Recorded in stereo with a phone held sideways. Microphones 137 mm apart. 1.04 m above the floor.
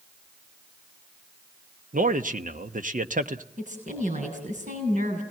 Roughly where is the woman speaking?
Right.